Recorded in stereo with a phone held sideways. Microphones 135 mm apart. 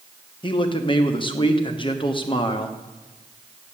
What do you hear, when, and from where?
0.4 s a man speaking: 35° left (ahead or behind), 1.1 m